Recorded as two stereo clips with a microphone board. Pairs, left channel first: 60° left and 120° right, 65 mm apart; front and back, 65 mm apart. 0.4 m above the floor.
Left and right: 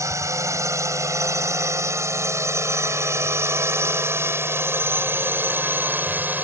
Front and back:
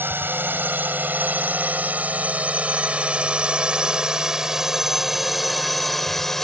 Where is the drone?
135° right; by 6.4 s 80° right.